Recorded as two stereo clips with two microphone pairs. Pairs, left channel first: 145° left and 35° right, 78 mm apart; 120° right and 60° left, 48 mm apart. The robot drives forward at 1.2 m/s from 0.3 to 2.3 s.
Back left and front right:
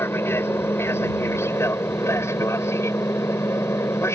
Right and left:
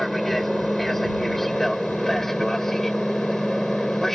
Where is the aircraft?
155° left; by 4.2 s 160° left.